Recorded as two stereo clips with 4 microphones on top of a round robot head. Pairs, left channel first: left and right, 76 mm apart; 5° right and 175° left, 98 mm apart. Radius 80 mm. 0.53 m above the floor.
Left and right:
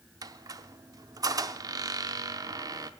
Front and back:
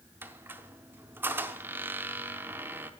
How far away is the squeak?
About 0.8 m.